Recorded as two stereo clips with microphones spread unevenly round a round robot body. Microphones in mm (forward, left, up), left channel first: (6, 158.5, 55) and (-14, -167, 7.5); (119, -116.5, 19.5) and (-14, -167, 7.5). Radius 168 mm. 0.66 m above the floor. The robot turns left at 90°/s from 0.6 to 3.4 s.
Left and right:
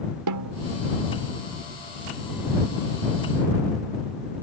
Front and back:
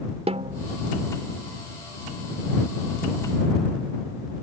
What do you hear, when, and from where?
0.3 s a snare drum: 120° right; by 0.7 s 125° right